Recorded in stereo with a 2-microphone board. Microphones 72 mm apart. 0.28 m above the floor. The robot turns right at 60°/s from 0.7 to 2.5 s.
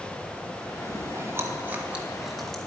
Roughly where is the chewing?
Right.